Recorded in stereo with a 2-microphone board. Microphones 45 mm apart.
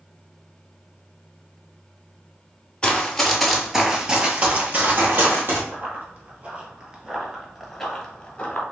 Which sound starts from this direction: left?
Running footsteps, at 2.8 s.